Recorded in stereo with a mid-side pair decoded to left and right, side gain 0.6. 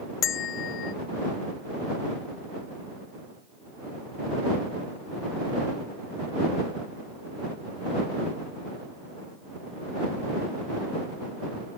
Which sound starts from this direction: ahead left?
A bell, at 0.2 s.